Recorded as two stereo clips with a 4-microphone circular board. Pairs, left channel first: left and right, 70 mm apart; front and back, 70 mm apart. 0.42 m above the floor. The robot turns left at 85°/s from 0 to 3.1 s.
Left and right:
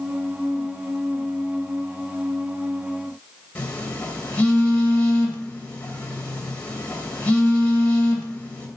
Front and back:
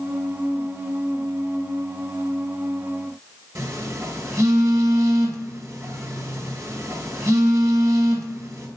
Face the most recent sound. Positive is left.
turn(degrees=150)